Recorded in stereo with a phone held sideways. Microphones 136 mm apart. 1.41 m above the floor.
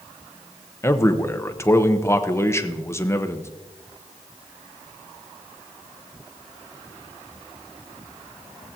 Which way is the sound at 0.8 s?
20° left (ahead or behind).